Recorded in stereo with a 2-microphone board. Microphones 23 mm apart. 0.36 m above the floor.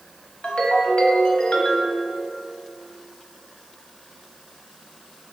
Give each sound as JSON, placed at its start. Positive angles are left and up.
{"t": 0.4, "sound": "a ringtone", "side_deg": 65, "distance_m": 0.9}